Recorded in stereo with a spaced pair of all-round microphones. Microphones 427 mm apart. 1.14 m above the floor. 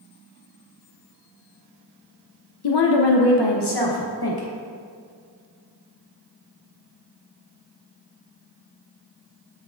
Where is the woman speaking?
65° left (ahead or behind), 0.5 m; by 4.5 s 55° left (ahead or behind), 1.3 m.